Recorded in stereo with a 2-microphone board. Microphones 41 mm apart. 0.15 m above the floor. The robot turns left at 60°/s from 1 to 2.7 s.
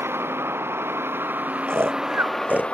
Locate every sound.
0.0 s a vehicle: 105° right; by 2.8 s 155° left
1.7 s snoring: 80° right; by 2.8 s 35° right (ahead or behind)